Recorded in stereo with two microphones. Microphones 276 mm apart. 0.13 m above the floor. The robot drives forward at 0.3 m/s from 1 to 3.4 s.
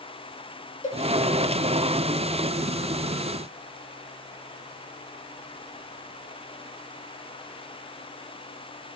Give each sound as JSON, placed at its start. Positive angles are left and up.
{"t": 0.8, "sound": "a cowbell", "side_deg": 25, "distance_m": 1.0}